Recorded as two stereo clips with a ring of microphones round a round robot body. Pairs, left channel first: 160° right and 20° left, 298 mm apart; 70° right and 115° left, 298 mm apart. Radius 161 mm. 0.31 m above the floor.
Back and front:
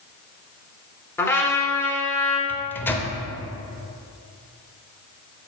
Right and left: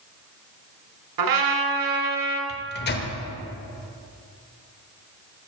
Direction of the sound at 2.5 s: 80° right.